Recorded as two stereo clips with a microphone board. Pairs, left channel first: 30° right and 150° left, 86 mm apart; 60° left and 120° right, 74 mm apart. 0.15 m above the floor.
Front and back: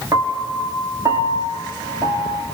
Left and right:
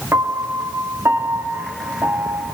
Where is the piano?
170° right, 2.5 m.